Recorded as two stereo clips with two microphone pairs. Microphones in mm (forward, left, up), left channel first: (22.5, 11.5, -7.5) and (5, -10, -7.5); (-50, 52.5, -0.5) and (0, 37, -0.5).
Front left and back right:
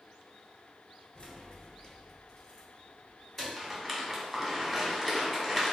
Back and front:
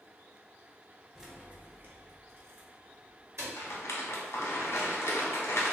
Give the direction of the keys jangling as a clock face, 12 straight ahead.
10 o'clock.